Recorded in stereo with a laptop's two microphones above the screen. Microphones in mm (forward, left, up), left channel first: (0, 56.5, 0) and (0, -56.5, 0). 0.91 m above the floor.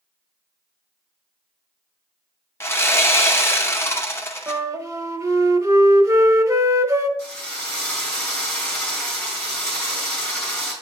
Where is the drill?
15° left (ahead or behind), 3 m.